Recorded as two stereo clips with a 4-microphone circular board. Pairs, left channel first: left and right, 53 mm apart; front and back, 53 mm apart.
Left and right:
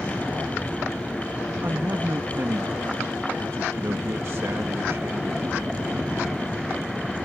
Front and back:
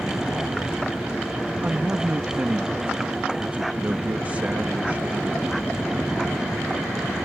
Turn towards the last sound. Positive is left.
turn(degrees=-120)